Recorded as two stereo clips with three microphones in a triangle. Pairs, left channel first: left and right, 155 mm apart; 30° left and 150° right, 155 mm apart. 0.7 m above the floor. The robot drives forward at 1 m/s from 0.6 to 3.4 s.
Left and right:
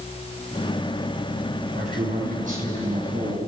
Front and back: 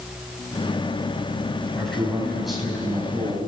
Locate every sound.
1.7 s a man speaking: 55° right, 6.5 m; by 3.5 s 70° right, 5.5 m